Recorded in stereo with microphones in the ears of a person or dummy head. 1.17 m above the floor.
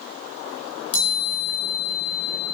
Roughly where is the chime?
Left.